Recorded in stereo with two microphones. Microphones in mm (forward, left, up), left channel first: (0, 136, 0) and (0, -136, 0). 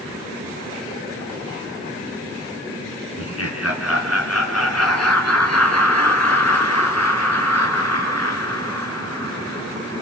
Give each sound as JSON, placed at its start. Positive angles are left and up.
{"t": 3.2, "sound": "laughter", "side_deg": 60, "distance_m": 3.5}